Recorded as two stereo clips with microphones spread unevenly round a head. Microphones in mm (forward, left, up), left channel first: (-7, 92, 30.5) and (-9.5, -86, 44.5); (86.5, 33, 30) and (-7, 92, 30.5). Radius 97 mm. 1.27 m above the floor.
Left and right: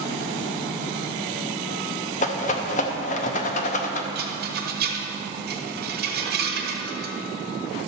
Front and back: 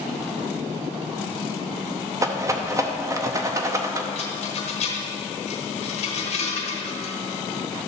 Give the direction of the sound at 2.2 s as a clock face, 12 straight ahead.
8 o'clock.